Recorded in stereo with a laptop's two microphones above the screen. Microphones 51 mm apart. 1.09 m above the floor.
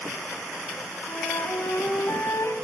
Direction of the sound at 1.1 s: 70° left (ahead or behind).